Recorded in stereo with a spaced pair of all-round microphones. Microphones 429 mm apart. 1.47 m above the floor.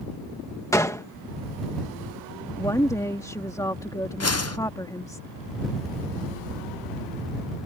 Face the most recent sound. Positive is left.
turn(degrees=35)  # may be behind; listen again after turning